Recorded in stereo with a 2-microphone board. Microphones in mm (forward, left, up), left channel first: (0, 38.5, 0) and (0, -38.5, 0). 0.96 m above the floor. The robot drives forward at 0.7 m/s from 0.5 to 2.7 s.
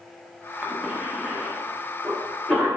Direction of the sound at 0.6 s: 20° right (ahead or behind).